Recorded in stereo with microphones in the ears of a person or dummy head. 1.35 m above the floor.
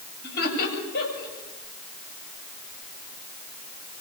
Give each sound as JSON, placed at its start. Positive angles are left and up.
{"t": 0.2, "sound": "laughter", "side_deg": 55, "distance_m": 8.0}